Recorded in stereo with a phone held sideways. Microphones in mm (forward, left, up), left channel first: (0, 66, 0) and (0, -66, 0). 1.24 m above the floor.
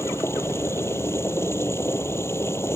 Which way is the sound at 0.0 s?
20° left (ahead or behind).